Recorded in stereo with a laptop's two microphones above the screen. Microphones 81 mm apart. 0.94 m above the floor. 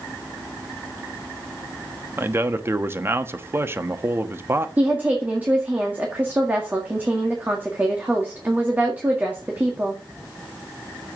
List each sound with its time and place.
2.2 s a man speaking: 30° right (ahead or behind), 1.1 m
4.8 s a woman speaking: 20° right (ahead or behind), 1.8 m